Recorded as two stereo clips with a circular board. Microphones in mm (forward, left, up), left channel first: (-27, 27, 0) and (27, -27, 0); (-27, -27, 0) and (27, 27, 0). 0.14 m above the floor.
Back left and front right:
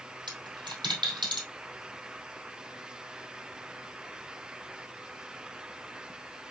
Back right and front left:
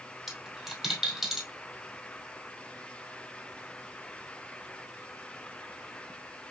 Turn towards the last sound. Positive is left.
turn(degrees=-45)